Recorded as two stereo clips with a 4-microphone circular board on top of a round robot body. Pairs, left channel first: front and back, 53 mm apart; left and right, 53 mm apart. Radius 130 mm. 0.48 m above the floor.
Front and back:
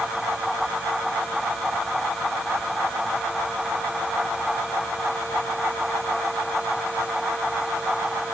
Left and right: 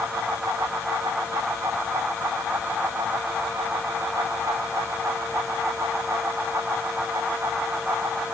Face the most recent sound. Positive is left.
No sound to turn to.